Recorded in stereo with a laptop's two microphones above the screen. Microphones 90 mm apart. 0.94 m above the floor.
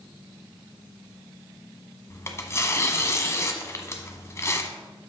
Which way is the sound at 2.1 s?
30° left (ahead or behind).